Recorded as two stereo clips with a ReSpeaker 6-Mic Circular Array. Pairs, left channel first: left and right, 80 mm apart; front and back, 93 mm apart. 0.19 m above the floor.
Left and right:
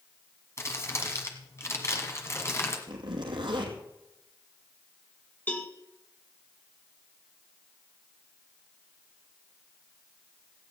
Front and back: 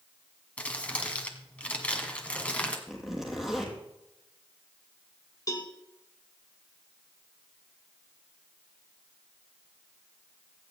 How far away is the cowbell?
About 1.8 m.